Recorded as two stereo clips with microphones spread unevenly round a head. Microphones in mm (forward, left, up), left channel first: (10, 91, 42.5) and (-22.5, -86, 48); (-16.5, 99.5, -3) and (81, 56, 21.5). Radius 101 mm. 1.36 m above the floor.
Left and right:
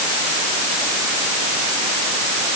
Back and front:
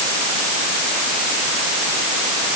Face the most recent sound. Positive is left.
No sound to turn to.